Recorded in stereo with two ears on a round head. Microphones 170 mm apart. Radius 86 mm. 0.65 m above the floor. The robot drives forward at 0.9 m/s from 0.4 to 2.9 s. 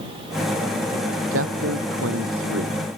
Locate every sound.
1.3 s a man speaking: 90° right; by 2.8 s 85° right